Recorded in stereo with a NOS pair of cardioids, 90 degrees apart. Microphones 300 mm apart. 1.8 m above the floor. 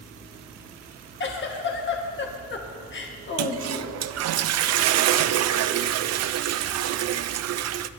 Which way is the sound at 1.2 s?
40° left.